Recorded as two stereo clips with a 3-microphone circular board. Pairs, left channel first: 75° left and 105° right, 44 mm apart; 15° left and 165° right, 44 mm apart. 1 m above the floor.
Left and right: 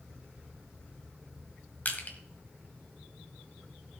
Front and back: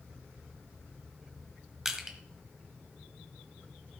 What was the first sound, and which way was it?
Crushing, 115° left.